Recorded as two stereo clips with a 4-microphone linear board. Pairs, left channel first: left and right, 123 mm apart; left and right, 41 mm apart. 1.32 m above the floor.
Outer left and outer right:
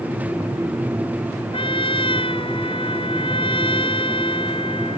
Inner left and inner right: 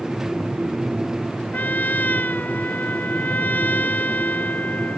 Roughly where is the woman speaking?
I don't hear a woman speaking.